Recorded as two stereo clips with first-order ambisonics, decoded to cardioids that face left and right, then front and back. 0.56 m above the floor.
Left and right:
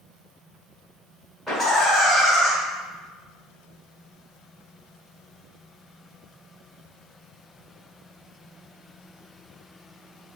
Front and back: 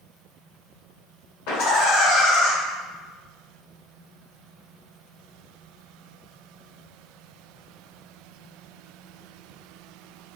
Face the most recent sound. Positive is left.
turn(degrees=0)